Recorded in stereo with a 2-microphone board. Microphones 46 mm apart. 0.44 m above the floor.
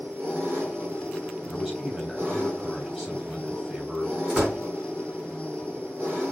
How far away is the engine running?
About 3.5 m.